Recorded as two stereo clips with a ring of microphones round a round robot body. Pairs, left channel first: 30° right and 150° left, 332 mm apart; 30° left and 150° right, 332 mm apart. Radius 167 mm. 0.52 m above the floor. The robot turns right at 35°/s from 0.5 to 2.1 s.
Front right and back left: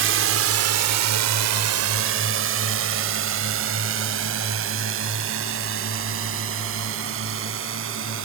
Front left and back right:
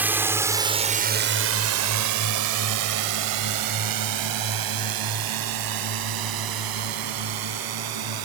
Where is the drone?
130° left; by 8.2 s 160° right.